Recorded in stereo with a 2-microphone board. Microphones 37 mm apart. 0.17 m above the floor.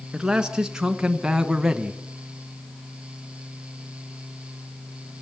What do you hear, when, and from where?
0.1 s a man speaking: 15° right (ahead or behind), 1.9 m